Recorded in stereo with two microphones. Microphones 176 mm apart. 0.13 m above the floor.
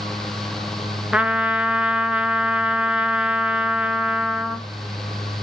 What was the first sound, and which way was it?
A trumpet, 5° right (ahead or behind).